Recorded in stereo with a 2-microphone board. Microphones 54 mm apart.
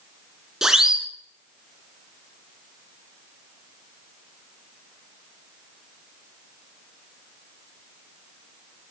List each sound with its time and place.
0.6 s a siren: 10° right (ahead or behind), 3 m